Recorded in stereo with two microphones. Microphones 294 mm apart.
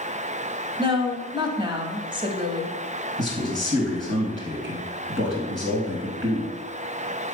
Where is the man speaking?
40° right (ahead or behind), 3 m.